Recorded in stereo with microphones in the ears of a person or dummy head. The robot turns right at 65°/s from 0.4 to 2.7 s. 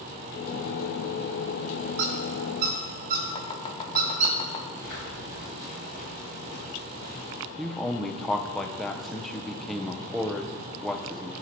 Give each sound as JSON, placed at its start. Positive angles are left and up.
{"t": 2.0, "sound": "a squeak", "side_deg": -65, "distance_m": 1.4}
{"t": 3.4, "sound": "chopping", "side_deg": 30, "distance_m": 0.9}
{"t": 4.8, "sound": "footsteps", "side_deg": 45, "distance_m": 2.0}
{"t": 7.6, "sound": "a man speaking", "side_deg": 5, "distance_m": 0.5}